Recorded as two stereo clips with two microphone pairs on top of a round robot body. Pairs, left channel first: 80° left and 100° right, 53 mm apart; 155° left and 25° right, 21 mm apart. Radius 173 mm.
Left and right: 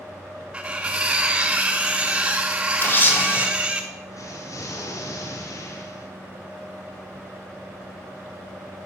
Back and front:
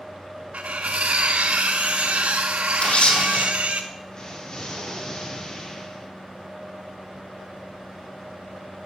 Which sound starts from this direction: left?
An explosion, at 4.1 s.